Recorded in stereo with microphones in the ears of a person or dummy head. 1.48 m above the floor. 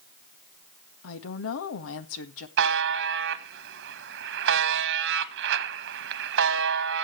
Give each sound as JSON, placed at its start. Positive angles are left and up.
{"t": 1.0, "sound": "a woman speaking", "side_deg": 75, "distance_m": 1.6}
{"t": 2.6, "sound": "a buzzer", "side_deg": -60, "distance_m": 1.2}